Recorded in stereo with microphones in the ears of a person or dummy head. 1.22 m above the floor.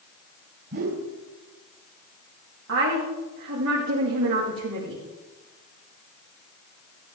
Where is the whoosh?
55° right (ahead or behind), 2.5 m.